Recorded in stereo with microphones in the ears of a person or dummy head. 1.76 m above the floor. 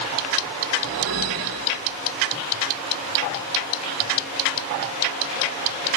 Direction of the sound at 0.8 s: 75° right (ahead or behind).